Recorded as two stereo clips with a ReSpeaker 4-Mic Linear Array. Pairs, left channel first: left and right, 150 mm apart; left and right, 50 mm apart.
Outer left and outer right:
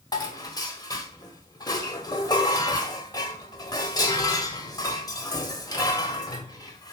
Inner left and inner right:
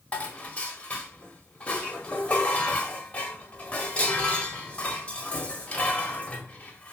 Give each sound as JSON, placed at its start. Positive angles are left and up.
{"t": 0.1, "sound": "dishes clattering", "side_deg": 25, "distance_m": 1.4}